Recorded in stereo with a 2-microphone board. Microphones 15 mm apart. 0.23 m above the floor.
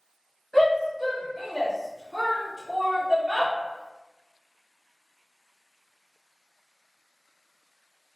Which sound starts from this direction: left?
A shout, at 0.5 s.